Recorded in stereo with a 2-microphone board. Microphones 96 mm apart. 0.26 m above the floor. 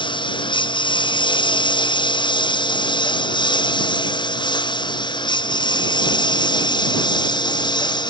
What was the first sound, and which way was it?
A lawn mower, 50° left (ahead or behind).